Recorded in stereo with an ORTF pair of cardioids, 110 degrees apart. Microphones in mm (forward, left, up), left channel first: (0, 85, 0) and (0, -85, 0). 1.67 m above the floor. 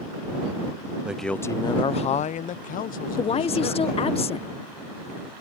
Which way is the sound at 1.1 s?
5° right.